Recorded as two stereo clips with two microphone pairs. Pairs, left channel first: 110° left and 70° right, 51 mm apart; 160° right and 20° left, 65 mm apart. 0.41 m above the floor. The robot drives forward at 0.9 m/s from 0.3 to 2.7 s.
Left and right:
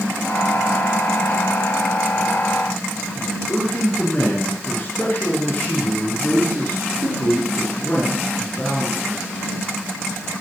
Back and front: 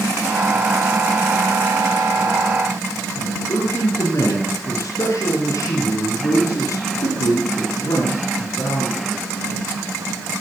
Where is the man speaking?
165° left, 4.5 m.